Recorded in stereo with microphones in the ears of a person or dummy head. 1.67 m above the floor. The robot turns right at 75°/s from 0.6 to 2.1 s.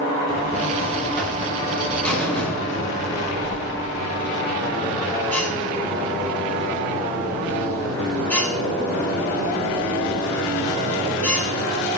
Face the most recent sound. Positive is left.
turn(degrees=10)